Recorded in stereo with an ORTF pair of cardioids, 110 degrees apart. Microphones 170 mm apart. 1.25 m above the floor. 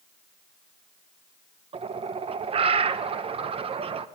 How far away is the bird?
About 0.7 m.